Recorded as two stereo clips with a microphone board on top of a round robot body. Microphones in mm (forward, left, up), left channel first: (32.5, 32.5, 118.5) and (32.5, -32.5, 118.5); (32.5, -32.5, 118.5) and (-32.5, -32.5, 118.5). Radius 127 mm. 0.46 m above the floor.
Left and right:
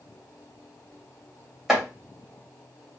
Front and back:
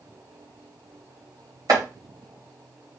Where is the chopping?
175° right, 2 m.